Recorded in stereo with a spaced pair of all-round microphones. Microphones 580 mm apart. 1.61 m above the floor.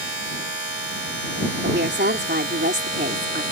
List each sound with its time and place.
0.0 s a machine running: 70° right (ahead or behind)
1.6 s a woman speaking: 15° right (ahead or behind)